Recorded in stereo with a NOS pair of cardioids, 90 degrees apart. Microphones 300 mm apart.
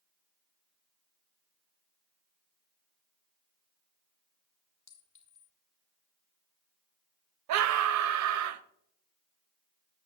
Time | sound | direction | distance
4.9 | a clink | 55° left | 2.5 m
7.5 | a scream | 70° right | 0.8 m